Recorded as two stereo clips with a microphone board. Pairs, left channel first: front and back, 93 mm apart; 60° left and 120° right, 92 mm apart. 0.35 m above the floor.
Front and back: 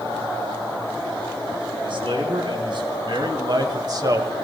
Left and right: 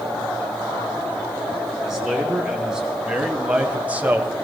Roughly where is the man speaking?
Behind left.